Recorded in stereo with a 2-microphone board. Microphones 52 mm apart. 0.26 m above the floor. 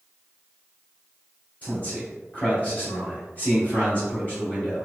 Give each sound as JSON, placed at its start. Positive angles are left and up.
{"t": 1.6, "sound": "a man speaking", "side_deg": 30, "distance_m": 1.8}